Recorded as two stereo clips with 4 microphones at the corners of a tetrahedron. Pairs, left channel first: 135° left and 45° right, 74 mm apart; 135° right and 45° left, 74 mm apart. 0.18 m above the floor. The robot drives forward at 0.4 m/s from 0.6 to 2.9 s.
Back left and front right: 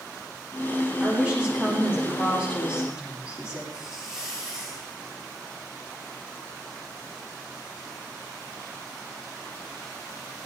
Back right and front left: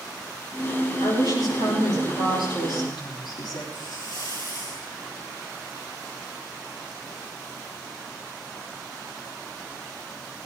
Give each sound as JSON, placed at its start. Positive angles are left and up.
{"t": 1.0, "sound": "a woman speaking", "azimuth_deg": -115, "distance_m": 9.5}
{"t": 3.7, "sound": "a hiss", "azimuth_deg": -125, "distance_m": 7.5}